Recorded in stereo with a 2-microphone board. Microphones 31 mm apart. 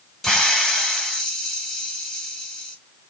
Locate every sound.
0.2 s a hiss: 10° left (ahead or behind), 1.1 m